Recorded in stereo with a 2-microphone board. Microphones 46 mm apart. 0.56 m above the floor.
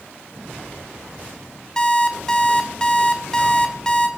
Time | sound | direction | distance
1.8 | an alarm clock | 15° left (ahead or behind) | 1.1 m